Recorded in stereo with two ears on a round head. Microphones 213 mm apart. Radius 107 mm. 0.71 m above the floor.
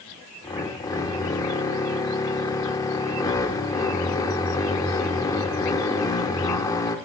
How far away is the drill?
About 0.7 m.